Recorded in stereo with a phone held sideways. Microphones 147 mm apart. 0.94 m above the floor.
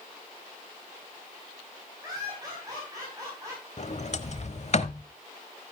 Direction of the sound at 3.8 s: 50° left (ahead or behind).